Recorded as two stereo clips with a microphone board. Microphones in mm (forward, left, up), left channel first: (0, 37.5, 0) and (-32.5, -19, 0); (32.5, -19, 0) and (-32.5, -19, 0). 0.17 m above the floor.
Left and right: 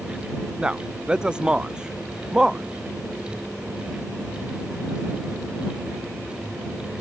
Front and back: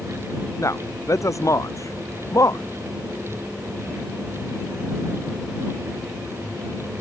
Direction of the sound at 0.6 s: 45° right.